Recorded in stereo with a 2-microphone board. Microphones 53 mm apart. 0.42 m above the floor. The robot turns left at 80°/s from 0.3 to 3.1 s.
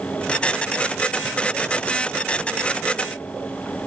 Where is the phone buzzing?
I don't hear a phone buzzing.